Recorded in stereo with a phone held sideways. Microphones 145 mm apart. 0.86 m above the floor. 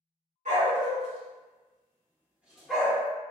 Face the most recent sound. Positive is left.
turn(degrees=15)  # may be behind; listen again after turning